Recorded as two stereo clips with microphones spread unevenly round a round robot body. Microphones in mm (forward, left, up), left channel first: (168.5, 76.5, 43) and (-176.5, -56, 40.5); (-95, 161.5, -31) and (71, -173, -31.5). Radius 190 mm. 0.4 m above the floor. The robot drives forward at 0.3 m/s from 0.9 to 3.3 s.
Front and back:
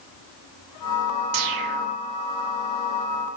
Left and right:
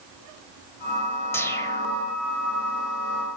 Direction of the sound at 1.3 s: 160° right.